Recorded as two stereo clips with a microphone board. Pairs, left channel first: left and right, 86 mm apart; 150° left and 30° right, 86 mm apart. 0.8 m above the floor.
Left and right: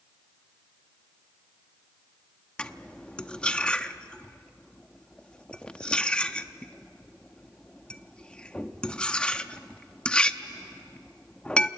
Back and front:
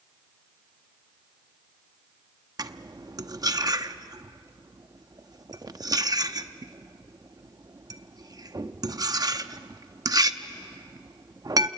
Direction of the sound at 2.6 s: 10° left.